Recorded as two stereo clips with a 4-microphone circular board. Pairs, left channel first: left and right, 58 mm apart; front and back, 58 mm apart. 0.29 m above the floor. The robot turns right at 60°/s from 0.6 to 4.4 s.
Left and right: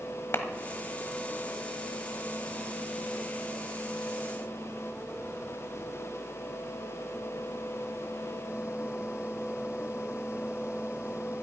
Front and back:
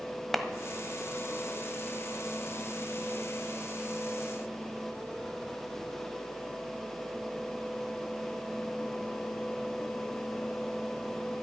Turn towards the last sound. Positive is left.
turn(degrees=-45)